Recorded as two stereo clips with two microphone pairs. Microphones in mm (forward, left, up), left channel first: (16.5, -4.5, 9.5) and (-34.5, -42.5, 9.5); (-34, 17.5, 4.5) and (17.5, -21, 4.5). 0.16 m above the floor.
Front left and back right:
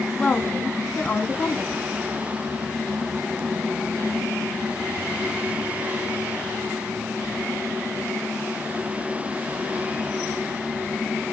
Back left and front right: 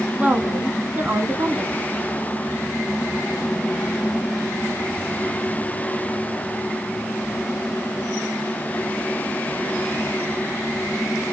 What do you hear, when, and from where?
0.2 s a woman speaking: 15° right, 1.5 m